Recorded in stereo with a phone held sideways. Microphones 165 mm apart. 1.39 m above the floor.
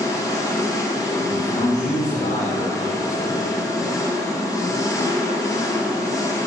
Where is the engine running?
20° left (ahead or behind), 0.9 m.